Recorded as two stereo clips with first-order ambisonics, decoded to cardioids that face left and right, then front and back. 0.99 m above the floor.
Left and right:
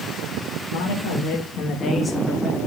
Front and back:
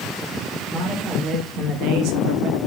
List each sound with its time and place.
0.7 s a man speaking: 85° left, 1.7 m; by 2.6 s 170° right, 1.8 m